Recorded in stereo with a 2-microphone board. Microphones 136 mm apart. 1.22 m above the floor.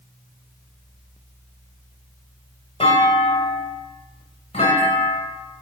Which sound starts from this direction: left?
A clunk, at 2.8 s.